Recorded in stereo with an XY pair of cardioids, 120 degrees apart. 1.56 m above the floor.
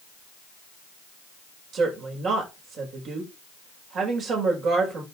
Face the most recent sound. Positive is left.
turn(degrees=-55)